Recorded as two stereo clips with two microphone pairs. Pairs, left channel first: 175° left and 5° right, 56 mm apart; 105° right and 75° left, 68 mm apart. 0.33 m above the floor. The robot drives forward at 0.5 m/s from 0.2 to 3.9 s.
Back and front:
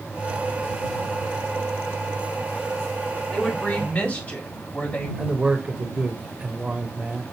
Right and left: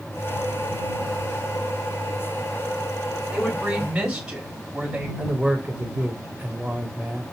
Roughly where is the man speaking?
Ahead left.